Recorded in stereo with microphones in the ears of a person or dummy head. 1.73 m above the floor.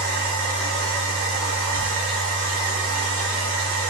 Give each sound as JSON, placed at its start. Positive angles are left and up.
{"t": 0.0, "sound": "a machine running", "side_deg": -60, "distance_m": 0.9}